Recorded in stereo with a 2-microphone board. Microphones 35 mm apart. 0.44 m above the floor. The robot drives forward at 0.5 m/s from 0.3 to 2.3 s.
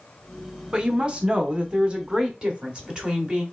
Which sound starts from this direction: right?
A woman speaking, at 0.7 s.